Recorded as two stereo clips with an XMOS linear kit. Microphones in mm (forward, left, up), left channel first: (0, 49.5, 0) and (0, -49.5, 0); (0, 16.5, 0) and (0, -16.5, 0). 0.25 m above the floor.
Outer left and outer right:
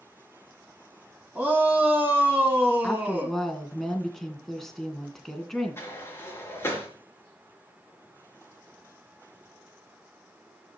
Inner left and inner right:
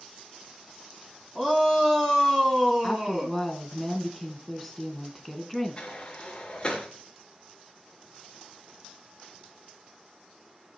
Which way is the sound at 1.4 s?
15° right (ahead or behind).